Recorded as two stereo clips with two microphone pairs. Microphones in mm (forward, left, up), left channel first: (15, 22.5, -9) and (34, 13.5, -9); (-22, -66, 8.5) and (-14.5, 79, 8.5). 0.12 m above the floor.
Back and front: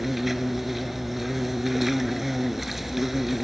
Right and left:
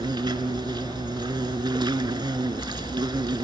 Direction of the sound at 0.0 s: 50° left.